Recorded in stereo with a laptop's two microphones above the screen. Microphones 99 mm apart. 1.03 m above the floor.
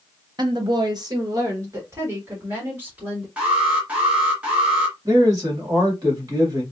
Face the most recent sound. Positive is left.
turn(degrees=-40)  # may be behind; listen again after turning